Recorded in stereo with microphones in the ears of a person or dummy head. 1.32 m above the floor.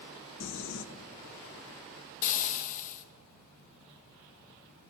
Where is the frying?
45° left (ahead or behind), 0.7 m.